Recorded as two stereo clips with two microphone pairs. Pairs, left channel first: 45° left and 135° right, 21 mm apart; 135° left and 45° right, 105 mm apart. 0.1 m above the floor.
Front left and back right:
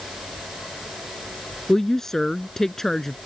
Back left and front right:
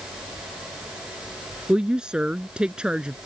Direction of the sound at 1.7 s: 20° left.